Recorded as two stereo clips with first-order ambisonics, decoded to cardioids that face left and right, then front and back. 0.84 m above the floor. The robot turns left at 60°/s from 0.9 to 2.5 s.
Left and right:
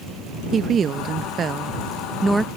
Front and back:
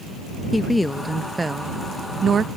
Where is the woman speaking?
80° right; by 2.5 s 170° right.